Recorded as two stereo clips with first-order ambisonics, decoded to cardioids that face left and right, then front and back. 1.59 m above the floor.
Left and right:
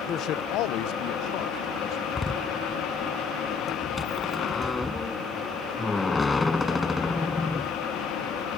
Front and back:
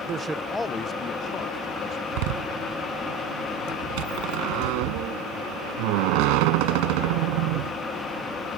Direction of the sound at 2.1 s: 170° left.